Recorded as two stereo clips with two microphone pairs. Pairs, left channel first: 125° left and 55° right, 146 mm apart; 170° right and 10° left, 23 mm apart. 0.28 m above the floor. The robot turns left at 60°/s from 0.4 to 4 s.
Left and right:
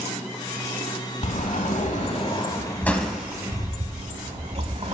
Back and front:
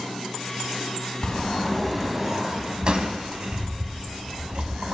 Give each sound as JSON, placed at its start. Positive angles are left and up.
{"t": 1.2, "sound": "a sliding door", "azimuth_deg": 145, "distance_m": 1.0}